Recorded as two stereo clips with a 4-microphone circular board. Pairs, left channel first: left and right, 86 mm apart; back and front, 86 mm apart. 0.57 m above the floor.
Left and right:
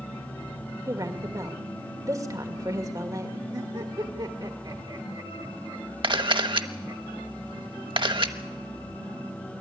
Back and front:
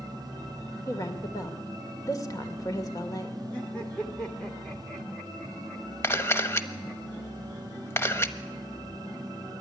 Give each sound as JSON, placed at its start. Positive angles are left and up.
{"t": 0.9, "sound": "a woman speaking", "azimuth_deg": -135, "distance_m": 2.0}
{"t": 3.5, "sound": "laughter", "azimuth_deg": -105, "distance_m": 1.3}
{"t": 6.0, "sound": "a camera shutter", "azimuth_deg": -115, "distance_m": 0.9}